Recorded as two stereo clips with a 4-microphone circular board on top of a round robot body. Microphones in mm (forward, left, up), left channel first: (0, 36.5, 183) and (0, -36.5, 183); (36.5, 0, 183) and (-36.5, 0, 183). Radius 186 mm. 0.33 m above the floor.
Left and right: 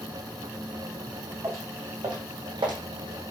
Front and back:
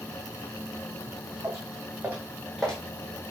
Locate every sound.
1.4 s footsteps: 130° right, 1.4 m; by 2.8 s 75° right, 1.1 m